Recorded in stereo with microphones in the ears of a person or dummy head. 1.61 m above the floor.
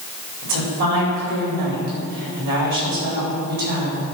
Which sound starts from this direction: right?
A woman speaking, at 0.4 s.